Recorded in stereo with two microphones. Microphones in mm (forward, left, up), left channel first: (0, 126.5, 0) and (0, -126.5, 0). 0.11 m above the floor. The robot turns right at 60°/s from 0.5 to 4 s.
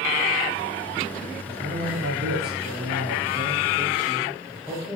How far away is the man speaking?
About 7 m.